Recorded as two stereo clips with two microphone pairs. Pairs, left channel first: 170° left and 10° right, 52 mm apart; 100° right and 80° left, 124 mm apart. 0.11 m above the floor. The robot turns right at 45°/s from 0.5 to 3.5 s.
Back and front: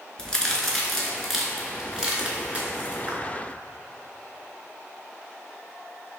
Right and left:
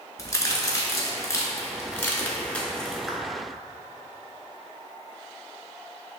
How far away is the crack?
About 0.7 m.